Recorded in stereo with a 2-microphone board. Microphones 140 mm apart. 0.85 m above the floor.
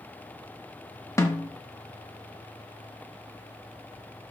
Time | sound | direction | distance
1.2 | a snare drum | 20° left (ahead or behind) | 1.4 m